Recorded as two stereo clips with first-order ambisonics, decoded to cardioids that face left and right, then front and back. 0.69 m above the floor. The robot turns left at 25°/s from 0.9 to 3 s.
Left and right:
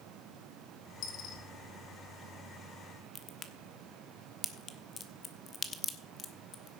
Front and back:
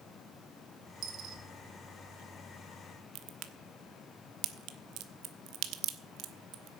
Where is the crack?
155° left, 1.0 m.